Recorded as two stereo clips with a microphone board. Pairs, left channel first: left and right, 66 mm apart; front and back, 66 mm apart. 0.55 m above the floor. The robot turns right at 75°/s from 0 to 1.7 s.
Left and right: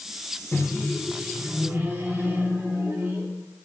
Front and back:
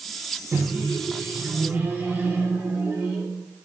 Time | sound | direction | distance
0.5 | a microwave | 140° left | 0.6 m